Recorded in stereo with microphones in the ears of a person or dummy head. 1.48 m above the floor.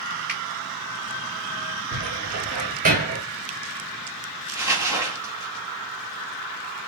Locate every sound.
0.3 s a finger snap: 10° right (ahead or behind), 3 m
1.9 s a cupboard door: 40° right (ahead or behind), 1.9 m
4.5 s crumpling: 15° right (ahead or behind), 1.4 m